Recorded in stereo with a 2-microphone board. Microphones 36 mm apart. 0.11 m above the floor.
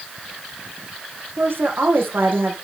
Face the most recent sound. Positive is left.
turn(degrees=-75)  # may be behind; listen again after turning